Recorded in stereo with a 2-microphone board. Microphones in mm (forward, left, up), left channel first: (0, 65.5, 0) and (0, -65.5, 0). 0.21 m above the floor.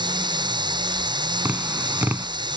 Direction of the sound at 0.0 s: 35° right (ahead or behind).